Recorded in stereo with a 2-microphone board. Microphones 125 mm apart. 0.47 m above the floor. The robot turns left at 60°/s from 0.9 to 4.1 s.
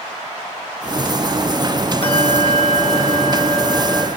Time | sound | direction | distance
2.0 | a bell | 130° left | 1.8 m